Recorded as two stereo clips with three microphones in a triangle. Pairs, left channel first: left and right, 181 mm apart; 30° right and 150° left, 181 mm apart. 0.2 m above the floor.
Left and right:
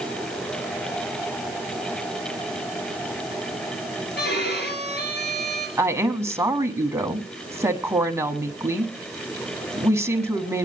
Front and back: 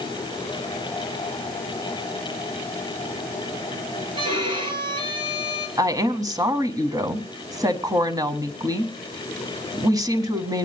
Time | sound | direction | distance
4.2 | a violin | 90° left | 4 m
5.8 | a woman speaking | 155° right | 1.4 m